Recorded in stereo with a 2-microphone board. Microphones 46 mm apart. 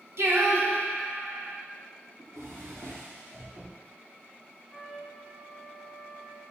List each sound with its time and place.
0.2 s singing: 70° right (ahead or behind), 1.4 m
2.2 s a drawer: 85° right, 4 m
4.7 s a trumpet: 20° right (ahead or behind), 3 m